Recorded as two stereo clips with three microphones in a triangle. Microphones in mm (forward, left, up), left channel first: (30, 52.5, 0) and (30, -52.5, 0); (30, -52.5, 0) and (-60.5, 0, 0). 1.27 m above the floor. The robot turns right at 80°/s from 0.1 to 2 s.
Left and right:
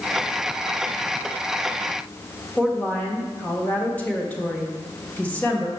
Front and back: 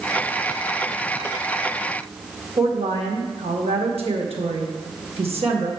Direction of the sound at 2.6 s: 165° left.